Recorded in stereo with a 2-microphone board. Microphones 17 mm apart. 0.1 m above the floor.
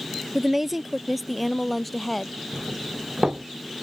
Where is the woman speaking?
15° right (ahead or behind); by 2.3 s 15° left (ahead or behind).